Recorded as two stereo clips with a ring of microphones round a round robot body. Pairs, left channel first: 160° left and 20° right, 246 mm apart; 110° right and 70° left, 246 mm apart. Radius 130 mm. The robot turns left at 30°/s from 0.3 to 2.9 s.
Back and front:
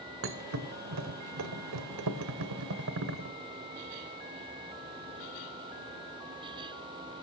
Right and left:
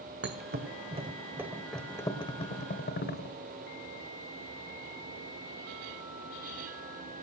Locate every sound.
0.2 s a thud: 20° left, 1.5 m; by 3.4 s 60° right, 1.5 m